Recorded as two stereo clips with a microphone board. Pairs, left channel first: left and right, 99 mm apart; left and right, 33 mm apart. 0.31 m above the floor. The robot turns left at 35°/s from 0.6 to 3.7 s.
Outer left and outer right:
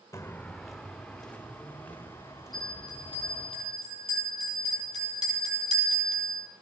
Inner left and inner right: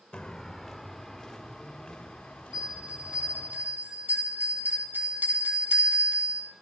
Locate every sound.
0.1 s footsteps: 25° left (ahead or behind), 1.0 m; by 3.5 s 65° left (ahead or behind), 4 m
2.5 s a bell: 45° right (ahead or behind), 5 m; by 6.4 s 85° right, 5 m